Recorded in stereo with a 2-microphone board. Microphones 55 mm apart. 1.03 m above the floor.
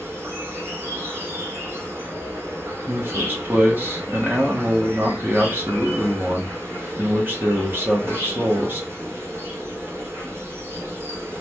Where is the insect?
55° right (ahead or behind), 1.1 m.